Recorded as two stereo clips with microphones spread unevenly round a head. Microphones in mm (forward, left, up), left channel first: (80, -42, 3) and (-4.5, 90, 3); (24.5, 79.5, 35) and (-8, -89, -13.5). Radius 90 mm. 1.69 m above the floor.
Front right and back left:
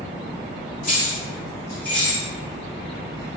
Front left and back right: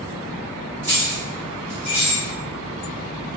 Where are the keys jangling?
15° right, 1.6 m; by 2.2 s 45° left, 1.0 m.